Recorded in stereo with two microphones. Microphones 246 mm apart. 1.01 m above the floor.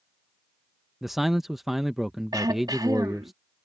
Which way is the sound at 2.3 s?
15° right (ahead or behind).